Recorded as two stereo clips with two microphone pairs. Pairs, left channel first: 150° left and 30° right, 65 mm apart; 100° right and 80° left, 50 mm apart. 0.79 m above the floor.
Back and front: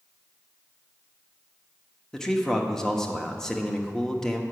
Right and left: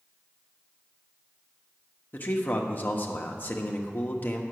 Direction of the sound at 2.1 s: 130° right.